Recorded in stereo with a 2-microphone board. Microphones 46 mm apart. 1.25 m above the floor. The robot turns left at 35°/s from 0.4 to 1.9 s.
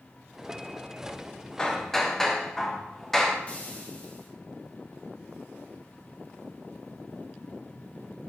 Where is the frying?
25° left (ahead or behind), 1.2 m.